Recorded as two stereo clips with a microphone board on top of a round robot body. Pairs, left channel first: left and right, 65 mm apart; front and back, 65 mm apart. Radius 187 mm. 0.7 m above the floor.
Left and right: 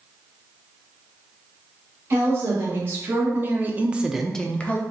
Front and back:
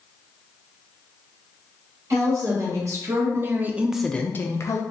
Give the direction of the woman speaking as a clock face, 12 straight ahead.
5 o'clock.